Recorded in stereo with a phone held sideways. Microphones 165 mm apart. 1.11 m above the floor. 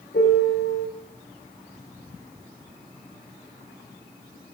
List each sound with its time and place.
0.1 s a piano: 80° left, 3 m